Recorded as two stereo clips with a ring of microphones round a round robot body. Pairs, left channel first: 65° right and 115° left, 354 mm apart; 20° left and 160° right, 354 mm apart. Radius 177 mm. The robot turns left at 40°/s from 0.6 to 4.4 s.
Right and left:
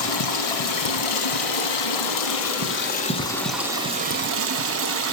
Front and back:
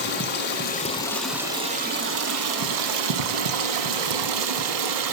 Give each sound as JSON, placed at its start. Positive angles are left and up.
{"t": 0.0, "sound": "running water", "azimuth_deg": -40, "distance_m": 1.2}